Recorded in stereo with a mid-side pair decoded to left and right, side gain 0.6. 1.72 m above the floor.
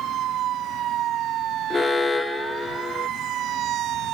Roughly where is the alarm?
Ahead left.